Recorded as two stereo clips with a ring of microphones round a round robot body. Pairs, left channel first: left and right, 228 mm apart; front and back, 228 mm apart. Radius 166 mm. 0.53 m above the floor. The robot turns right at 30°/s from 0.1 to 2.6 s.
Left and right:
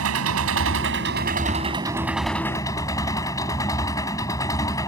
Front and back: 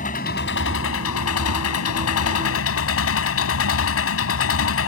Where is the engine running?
65° right; by 4.9 s 10° left.